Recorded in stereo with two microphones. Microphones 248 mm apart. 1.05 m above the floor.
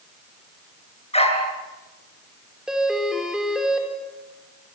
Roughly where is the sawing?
I don't hear sawing.